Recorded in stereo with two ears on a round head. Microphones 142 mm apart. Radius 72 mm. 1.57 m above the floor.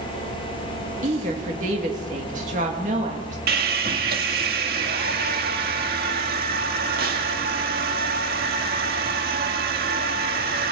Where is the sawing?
65° right (ahead or behind), 1.8 m.